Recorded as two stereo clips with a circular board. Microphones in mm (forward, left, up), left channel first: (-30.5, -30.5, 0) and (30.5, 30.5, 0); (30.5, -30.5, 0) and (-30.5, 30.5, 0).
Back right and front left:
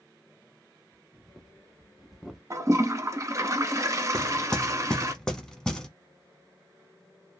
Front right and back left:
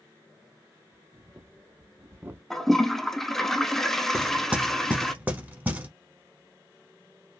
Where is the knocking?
155° left, 0.8 m.